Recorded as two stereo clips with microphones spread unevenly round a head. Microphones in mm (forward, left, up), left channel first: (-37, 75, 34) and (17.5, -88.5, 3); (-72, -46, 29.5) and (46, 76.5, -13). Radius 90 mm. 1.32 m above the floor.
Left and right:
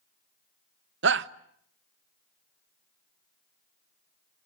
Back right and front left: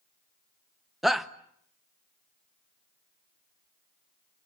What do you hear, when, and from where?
1.0 s a shout: 45° right, 1.2 m